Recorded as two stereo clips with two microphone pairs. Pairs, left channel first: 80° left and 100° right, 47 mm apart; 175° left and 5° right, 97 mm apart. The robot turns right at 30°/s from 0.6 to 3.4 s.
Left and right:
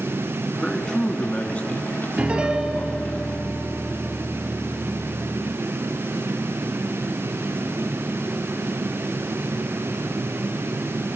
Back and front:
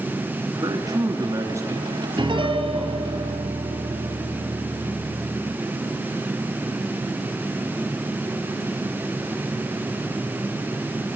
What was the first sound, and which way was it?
A man speaking, straight ahead.